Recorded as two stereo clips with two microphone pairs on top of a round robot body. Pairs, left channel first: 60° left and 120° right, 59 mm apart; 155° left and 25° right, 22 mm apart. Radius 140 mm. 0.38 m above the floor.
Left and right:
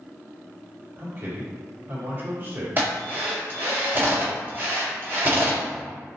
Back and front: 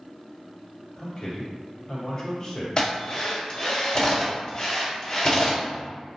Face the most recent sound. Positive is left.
turn(degrees=-160)